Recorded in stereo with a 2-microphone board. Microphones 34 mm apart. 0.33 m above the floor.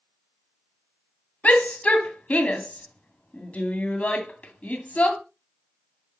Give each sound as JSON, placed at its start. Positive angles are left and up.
{"t": 1.4, "sound": "a shout", "side_deg": 50, "distance_m": 2.0}